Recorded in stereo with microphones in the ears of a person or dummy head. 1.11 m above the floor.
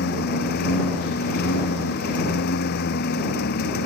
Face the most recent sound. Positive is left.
turn(degrees=65)  # may be behind; listen again after turning